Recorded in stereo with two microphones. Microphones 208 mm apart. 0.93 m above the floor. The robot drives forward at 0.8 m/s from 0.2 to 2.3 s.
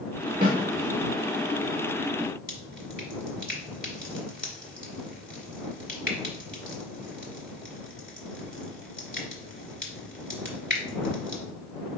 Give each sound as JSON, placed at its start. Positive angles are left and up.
{"t": 0.4, "sound": "a snare drum", "side_deg": -40, "distance_m": 1.7}
{"t": 2.5, "sound": "dripping", "side_deg": 45, "distance_m": 1.3}